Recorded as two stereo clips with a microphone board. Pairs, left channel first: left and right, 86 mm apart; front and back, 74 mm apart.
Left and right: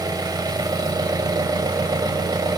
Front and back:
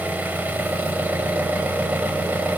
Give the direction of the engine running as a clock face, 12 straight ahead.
4 o'clock.